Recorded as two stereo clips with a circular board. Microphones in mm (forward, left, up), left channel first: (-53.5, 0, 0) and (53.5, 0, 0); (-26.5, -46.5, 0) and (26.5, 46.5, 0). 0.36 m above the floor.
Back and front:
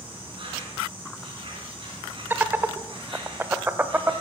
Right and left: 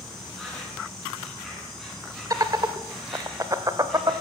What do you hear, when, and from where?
0.0 s an insect: 30° right, 6 m
2.3 s laughter: 55° left, 1.0 m